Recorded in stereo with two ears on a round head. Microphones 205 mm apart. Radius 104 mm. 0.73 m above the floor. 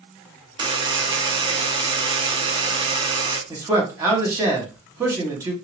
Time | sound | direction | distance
0.6 | a buzzer | 20° right (ahead or behind) | 0.5 m
3.5 | a man speaking | 10° right (ahead or behind) | 1.0 m